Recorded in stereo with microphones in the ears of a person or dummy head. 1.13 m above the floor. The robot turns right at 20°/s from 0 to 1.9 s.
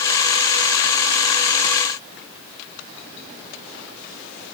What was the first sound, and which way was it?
Only background noise.